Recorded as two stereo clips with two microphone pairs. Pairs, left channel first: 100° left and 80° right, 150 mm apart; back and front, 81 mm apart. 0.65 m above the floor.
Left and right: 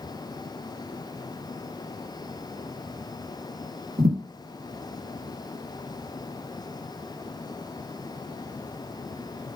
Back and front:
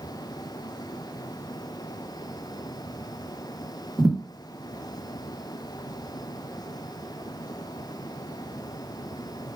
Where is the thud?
85° right, 1.2 m.